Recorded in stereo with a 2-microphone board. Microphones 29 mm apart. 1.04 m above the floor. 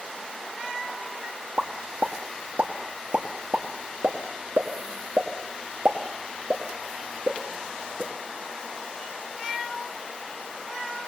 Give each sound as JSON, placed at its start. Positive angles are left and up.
{"t": 1.6, "sound": "a pop", "side_deg": -55, "distance_m": 2.0}